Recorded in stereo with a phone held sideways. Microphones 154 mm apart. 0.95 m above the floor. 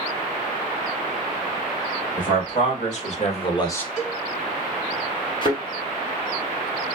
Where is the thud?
35° left (ahead or behind), 1.2 m.